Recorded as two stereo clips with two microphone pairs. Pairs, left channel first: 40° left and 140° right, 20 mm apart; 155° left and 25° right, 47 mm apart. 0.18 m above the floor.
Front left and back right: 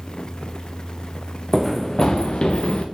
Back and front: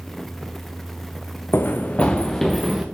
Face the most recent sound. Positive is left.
turn(degrees=60)